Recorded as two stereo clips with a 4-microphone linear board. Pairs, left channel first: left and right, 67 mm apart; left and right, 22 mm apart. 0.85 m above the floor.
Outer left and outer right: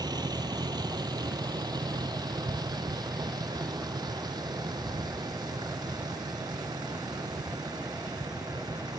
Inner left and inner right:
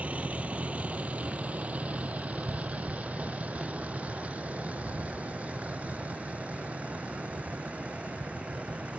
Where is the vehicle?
85° right; by 9.0 s 80° right.